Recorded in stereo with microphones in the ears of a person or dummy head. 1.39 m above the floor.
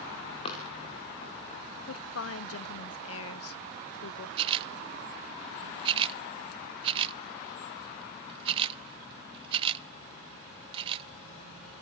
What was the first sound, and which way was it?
Running footsteps, 30° left (ahead or behind).